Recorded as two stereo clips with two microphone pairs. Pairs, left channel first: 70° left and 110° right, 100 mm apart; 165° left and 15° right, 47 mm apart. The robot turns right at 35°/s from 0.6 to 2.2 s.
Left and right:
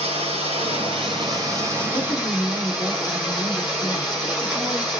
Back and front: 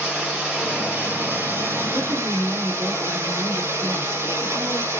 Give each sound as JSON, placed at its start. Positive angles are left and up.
{"t": 0.0, "sound": "running water", "azimuth_deg": -90, "distance_m": 5.0}
{"t": 1.9, "sound": "a woman speaking", "azimuth_deg": -40, "distance_m": 3.5}